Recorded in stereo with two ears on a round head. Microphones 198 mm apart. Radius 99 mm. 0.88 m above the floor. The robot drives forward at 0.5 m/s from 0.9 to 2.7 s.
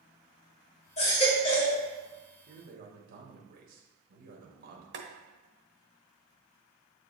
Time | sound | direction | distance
1.0 | a baby crying | 30° left (ahead or behind) | 1.6 m
2.5 | a man speaking | 45° right (ahead or behind) | 1.4 m
4.9 | boiling | 55° right (ahead or behind) | 1.1 m